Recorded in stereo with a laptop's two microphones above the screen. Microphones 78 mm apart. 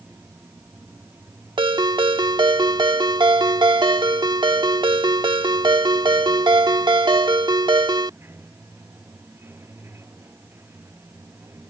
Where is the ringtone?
75° right (ahead or behind).